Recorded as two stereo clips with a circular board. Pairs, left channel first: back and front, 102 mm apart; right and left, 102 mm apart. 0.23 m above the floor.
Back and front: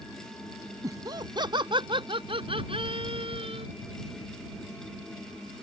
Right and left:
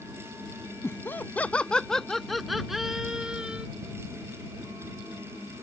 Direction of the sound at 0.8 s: 35° right.